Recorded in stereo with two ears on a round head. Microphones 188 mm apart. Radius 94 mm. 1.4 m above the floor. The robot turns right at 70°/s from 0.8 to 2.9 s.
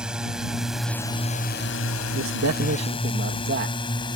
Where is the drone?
5° right (ahead or behind); by 4.2 s 25° left (ahead or behind).